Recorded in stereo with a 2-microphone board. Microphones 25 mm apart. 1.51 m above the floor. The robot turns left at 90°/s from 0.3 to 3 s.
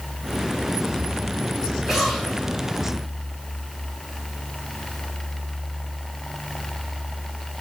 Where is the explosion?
170° right, 5.5 m; by 2.9 s 100° left, 5.5 m.